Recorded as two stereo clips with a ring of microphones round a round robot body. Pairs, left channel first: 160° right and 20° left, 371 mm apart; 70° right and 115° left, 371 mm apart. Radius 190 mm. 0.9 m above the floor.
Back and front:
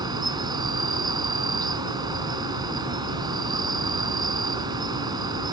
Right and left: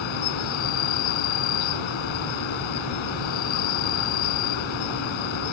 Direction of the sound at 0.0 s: 55° right.